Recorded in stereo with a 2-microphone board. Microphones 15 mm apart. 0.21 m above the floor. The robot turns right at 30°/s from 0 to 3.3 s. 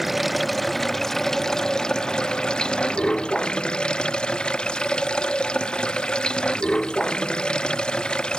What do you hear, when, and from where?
0.0 s running water: 10° right; by 8.4 s 90° left